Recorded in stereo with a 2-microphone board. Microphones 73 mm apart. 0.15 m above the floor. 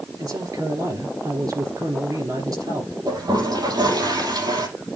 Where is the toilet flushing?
75° right (ahead or behind), 5.5 m.